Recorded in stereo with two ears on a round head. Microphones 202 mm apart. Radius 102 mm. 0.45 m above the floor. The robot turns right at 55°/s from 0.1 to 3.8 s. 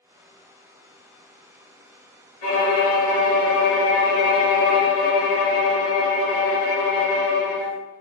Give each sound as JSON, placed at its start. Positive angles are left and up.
{"t": 2.4, "sound": "a violin", "azimuth_deg": 35, "distance_m": 1.7}